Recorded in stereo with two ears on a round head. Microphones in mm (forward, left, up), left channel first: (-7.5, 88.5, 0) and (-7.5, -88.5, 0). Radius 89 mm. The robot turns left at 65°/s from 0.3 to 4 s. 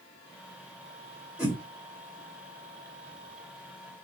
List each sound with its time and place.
1.4 s a whoosh: 5° right (ahead or behind), 1.0 m; by 1.6 s 15° right (ahead or behind), 1.0 m